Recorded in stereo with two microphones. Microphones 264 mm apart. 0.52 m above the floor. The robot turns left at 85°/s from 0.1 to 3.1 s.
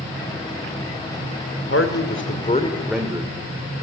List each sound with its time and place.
1.7 s a man speaking: 100° left, 1.8 m; by 3.3 s 15° right, 1.8 m